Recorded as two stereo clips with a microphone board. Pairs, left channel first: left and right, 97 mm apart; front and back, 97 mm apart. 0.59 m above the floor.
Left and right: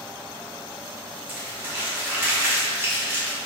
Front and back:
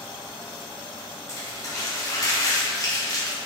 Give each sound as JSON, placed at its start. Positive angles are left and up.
{"t": 1.3, "sound": "crumpling", "azimuth_deg": -30, "distance_m": 0.9}